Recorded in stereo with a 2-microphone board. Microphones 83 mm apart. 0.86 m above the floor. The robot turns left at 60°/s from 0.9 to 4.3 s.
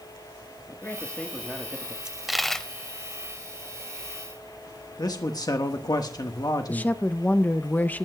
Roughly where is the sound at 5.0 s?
Left.